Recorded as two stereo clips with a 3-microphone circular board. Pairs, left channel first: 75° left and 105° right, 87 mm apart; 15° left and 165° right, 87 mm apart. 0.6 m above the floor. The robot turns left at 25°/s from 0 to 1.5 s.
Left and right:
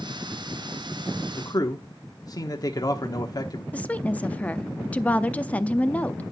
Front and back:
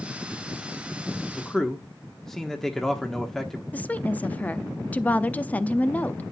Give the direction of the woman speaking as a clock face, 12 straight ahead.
11 o'clock.